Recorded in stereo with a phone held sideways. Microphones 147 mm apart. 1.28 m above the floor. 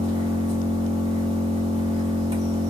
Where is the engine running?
35° right (ahead or behind), 2.0 m.